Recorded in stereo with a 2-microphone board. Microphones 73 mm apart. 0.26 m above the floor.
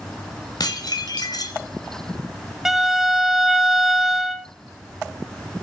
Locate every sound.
0.6 s dishes clattering: 60° left (ahead or behind), 1.8 m
2.6 s a violin: 5° right (ahead or behind), 0.8 m